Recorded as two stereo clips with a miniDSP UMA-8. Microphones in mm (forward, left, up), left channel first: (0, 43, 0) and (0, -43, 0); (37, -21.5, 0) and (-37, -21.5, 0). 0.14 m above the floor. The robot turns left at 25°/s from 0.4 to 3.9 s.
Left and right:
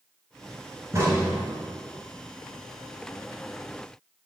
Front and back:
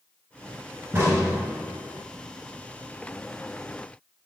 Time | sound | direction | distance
0.9 | a crack | 130° right | 2 m